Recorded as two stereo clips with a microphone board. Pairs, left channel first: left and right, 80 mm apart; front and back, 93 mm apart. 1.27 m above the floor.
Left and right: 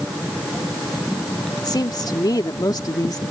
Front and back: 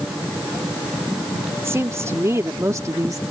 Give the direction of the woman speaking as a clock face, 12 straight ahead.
8 o'clock.